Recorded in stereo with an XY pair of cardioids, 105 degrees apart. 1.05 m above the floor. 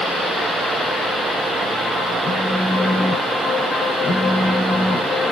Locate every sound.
2.2 s a phone buzzing: 25° left, 2.0 m